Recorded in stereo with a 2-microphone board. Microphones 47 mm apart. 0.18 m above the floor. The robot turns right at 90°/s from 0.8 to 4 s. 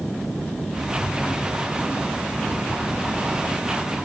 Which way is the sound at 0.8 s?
50° left.